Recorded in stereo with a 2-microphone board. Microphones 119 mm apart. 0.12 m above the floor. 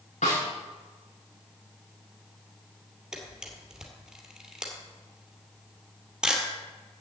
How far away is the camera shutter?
About 2.5 m.